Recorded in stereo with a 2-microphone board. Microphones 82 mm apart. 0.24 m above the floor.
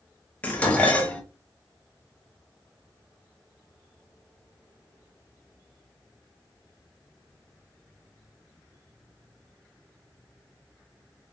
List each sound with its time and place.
0.4 s dishes clattering: 15° left (ahead or behind), 0.7 m